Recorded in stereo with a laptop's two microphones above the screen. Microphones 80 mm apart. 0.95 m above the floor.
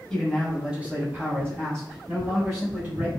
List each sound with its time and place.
0.1 s a man speaking: 10° left (ahead or behind), 0.8 m; by 3.1 s 35° right (ahead or behind), 1.8 m